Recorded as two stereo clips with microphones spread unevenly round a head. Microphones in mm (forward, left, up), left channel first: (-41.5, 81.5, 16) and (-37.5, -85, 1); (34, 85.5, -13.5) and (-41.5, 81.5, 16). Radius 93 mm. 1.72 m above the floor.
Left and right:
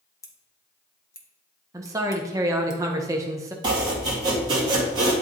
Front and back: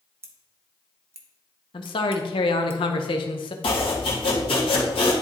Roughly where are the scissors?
Behind left.